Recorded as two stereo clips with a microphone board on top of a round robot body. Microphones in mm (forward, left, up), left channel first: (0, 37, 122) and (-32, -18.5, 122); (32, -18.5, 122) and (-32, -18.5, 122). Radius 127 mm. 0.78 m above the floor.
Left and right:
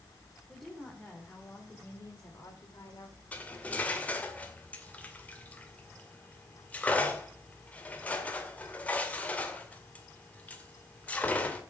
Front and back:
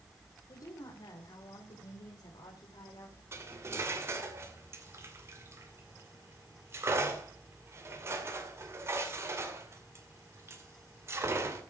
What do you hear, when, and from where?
0.5 s a woman speaking: 30° right, 3 m; by 3.2 s 25° left, 3.5 m
3.3 s cutlery clinking: 130° left, 2 m